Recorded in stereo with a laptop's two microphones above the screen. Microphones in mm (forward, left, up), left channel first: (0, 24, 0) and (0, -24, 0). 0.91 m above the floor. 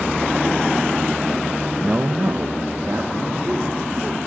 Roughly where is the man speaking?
Centre.